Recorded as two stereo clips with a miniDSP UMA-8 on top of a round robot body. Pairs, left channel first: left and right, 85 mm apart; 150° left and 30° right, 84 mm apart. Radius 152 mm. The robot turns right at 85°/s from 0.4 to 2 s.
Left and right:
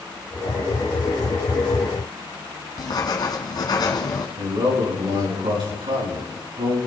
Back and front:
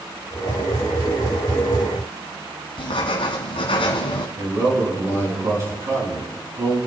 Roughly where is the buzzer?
No buzzer in this recording.